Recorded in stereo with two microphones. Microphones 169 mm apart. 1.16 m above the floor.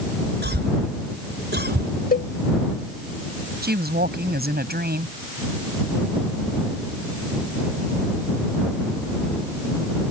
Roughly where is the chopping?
I don't hear chopping.